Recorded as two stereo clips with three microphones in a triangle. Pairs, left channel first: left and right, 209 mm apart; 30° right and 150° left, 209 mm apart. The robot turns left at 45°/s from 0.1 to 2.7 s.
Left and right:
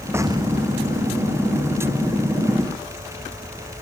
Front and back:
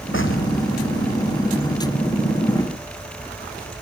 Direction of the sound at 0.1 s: 10° right.